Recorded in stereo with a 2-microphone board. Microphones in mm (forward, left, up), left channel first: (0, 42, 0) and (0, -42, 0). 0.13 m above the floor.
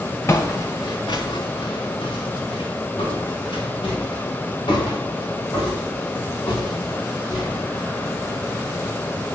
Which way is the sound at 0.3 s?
30° left (ahead or behind).